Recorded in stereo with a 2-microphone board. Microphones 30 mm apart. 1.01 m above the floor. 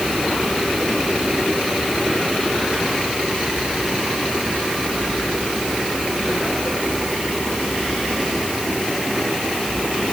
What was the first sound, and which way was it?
Only background noise.